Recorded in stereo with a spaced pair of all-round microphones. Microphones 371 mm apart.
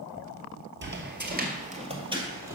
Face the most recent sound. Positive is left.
turn(degrees=-10)  # may be behind; listen again after turning